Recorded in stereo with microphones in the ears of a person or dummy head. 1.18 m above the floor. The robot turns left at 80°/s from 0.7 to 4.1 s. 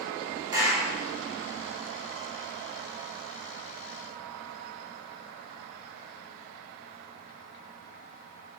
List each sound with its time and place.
0.5 s a clap: 20° right (ahead or behind), 3.5 m; by 0.9 s 5° right (ahead or behind), 3.5 m